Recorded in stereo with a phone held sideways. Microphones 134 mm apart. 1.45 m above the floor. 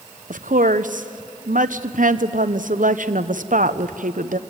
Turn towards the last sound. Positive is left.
turn(degrees=-80)